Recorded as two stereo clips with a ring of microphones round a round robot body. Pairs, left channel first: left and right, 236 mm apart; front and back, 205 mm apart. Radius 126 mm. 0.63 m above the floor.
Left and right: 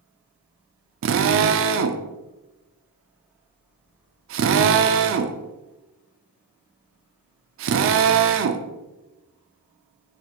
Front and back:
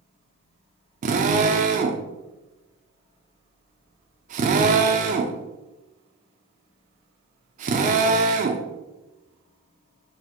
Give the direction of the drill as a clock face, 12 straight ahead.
4 o'clock.